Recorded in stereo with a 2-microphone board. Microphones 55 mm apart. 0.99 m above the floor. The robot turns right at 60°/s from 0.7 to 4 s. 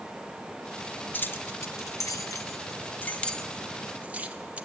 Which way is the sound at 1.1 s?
35° left (ahead or behind).